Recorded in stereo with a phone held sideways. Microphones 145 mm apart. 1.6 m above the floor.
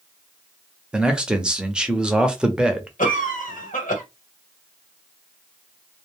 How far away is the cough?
About 1.3 m.